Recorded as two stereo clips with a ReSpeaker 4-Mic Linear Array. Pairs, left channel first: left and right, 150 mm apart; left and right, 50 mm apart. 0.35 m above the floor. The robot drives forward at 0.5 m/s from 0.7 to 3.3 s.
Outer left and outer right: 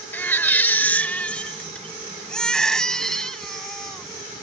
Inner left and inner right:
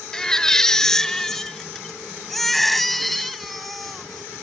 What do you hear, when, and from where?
0.1 s a baby crying: 10° left (ahead or behind); by 4.4 s 5° left (ahead or behind)